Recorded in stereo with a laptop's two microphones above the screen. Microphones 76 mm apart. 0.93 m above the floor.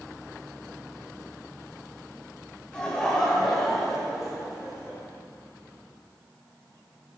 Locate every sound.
2.7 s laughter: 10° left (ahead or behind), 4.5 m; by 5.0 s 15° right (ahead or behind), 7 m